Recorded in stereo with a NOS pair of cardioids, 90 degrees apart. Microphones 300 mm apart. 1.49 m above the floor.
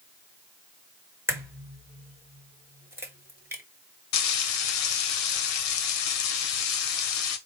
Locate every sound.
1.3 s a crack: 10° right, 1.4 m
4.1 s frying: 65° left, 0.9 m